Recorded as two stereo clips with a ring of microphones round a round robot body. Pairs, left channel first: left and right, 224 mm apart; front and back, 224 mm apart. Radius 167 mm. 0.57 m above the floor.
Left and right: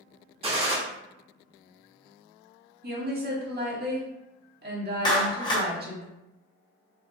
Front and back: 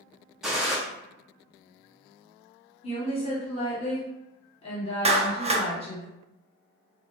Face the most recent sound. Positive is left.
turn(degrees=145)